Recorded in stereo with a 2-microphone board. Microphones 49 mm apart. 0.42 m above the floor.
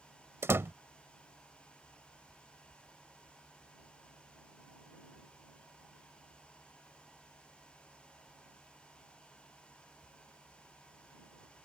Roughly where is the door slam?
Right.